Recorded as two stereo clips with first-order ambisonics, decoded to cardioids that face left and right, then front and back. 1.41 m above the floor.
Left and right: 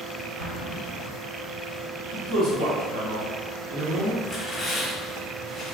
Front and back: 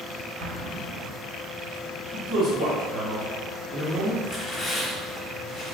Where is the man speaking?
95° right, 1.6 m.